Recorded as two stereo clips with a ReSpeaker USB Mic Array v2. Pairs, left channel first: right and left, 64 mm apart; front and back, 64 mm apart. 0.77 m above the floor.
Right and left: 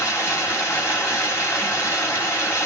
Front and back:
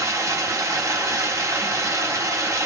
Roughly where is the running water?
Behind right.